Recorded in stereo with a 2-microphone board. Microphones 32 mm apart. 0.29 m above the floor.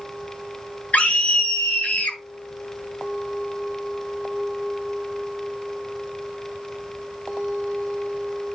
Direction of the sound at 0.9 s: 50° left (ahead or behind).